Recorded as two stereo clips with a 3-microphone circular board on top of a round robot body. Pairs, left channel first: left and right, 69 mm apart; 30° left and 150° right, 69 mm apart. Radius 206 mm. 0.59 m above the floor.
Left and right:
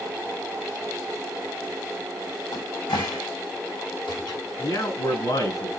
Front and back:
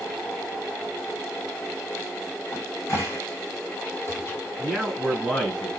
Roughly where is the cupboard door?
Left.